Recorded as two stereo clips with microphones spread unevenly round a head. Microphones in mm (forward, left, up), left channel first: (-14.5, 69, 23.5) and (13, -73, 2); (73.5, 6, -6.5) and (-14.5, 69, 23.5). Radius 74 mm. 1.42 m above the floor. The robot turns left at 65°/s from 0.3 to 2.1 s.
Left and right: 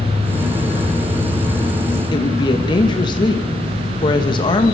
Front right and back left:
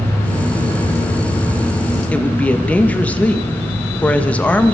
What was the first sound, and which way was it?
A woman speaking, 40° left.